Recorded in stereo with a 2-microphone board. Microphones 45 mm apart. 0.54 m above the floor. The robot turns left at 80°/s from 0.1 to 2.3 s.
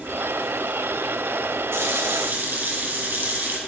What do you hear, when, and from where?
1.7 s a running tap: 80° right, 3 m; by 3.6 s 130° right, 3 m